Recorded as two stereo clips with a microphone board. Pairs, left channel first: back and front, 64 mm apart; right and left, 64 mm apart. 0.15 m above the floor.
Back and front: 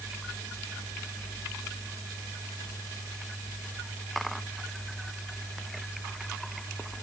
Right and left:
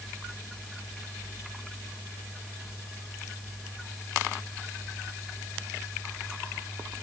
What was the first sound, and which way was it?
Only background noise.